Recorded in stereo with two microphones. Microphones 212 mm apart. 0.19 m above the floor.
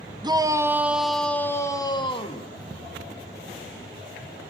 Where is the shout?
20° right (ahead or behind), 1.1 m; by 2.5 s 30° left (ahead or behind), 1.3 m.